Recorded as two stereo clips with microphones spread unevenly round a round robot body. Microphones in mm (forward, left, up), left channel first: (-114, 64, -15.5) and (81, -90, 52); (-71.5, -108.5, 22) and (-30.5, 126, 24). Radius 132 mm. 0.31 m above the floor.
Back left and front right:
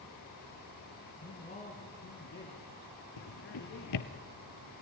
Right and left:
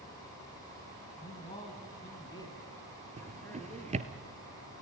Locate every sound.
1.2 s a man speaking: 165° right, 3 m; by 4.0 s straight behind, 5 m
3.2 s a drawer: 145° left, 1.7 m